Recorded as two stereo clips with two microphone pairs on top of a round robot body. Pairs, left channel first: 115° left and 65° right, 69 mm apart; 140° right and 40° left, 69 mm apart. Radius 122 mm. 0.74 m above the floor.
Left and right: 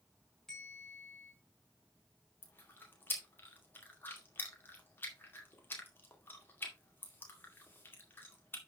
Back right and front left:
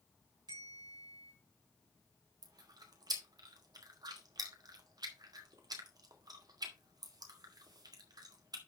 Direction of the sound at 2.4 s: 55° left.